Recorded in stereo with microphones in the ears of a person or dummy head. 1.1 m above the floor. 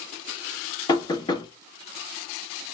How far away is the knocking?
About 1.1 m.